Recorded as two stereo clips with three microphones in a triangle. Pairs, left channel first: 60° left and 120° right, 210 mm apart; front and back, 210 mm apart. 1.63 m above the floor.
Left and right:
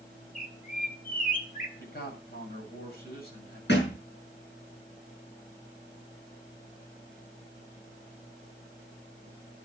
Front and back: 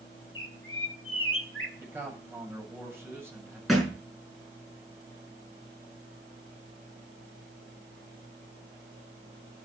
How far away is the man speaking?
About 8 m.